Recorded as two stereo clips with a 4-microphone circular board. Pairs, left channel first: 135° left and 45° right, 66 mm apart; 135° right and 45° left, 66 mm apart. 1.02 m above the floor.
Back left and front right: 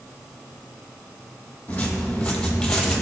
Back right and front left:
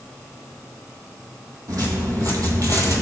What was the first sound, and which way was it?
Footsteps, 70° left.